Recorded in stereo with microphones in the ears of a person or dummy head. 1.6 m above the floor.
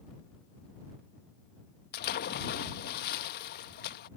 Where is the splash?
55° left (ahead or behind).